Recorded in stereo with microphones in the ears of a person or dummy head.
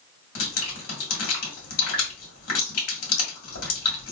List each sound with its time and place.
0.3 s dripping: 75° left (ahead or behind), 1.9 m